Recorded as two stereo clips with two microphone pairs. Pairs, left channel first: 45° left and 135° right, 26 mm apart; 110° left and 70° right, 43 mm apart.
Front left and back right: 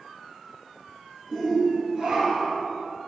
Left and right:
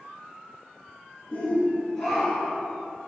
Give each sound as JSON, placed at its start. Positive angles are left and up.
{"t": 1.3, "sound": "a shout", "azimuth_deg": 145, "distance_m": 1.7}